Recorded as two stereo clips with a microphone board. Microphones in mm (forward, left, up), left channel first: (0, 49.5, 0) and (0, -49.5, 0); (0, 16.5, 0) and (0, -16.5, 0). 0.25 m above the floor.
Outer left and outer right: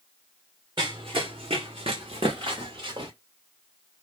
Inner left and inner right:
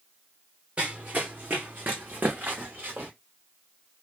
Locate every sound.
0.8 s running footsteps: 50° right (ahead or behind), 0.9 m